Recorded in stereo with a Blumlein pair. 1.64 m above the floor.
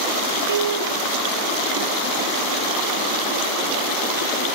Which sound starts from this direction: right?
A piano, at 0.5 s.